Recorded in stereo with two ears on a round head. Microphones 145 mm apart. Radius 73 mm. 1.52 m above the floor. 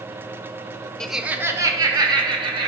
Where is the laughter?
5° left (ahead or behind), 0.7 m; by 2.7 s 30° right (ahead or behind), 2.5 m.